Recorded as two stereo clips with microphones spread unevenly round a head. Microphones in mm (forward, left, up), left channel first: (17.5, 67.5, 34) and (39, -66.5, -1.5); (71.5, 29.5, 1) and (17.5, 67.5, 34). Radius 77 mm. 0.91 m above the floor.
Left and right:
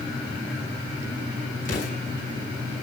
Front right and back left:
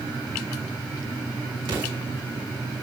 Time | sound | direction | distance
1.6 | an explosion | 140° left | 7.5 m